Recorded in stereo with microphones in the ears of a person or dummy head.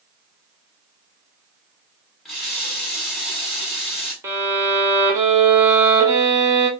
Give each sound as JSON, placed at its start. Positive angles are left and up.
{"t": 2.2, "sound": "a running tap", "side_deg": 0, "distance_m": 1.4}
{"t": 4.2, "sound": "a violin", "side_deg": -15, "distance_m": 0.7}